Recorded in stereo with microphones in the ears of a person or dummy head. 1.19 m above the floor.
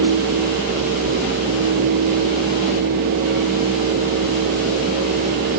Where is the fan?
55° right (ahead or behind), 1.0 m.